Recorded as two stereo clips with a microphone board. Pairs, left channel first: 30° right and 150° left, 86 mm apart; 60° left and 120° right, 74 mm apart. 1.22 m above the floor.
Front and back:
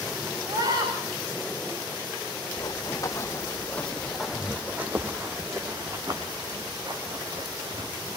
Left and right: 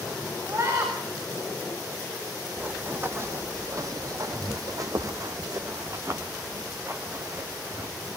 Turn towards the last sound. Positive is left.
turn(degrees=-175)